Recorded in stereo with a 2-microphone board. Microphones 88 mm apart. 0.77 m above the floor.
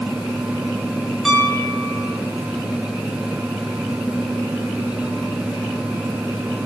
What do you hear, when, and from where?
1.2 s a piano: centre (ahead or behind), 7.5 m